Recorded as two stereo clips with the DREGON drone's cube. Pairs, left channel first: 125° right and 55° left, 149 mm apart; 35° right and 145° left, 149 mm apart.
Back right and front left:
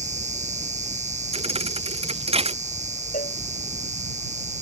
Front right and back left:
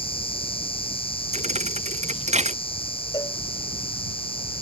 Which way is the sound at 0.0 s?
20° left.